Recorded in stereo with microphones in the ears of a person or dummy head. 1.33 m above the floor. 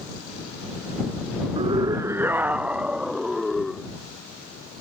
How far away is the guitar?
No guitar in this recording.